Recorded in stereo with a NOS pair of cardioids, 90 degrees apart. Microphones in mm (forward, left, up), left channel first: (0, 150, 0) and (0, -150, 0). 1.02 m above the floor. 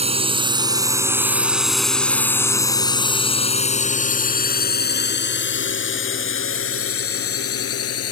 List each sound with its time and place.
0.0 s a drone: 20° right; by 8.1 s 55° left